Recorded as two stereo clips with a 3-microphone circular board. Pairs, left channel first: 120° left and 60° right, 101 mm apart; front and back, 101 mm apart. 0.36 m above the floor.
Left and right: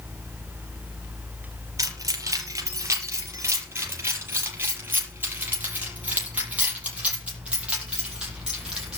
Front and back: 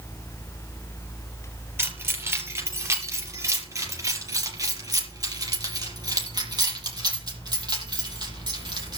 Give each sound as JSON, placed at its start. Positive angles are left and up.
{"t": 1.8, "sound": "keys jangling", "azimuth_deg": -115, "distance_m": 5.0}